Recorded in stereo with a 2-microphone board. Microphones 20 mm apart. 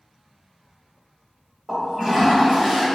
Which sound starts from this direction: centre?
A toilet flushing, at 1.7 s.